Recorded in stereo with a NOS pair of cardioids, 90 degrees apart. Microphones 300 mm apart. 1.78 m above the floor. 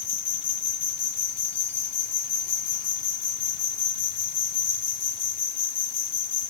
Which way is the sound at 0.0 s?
55° left.